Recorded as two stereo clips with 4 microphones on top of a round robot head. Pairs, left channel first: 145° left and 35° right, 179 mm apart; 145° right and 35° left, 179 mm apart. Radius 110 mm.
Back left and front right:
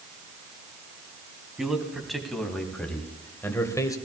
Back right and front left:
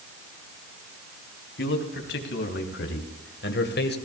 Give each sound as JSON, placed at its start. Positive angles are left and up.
{"t": 1.6, "sound": "a man speaking", "azimuth_deg": -125, "distance_m": 3.0}